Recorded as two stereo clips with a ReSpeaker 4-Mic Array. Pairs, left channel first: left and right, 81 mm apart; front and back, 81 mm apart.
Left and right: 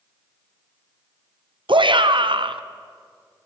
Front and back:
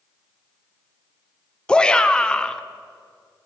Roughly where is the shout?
Right.